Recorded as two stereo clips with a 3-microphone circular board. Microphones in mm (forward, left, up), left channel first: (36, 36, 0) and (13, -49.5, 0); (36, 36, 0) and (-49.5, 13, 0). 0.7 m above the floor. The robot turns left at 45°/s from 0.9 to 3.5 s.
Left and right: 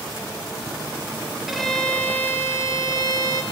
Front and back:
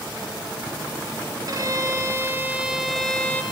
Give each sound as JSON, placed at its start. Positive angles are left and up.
{"t": 1.5, "sound": "a violin", "azimuth_deg": 170, "distance_m": 0.8}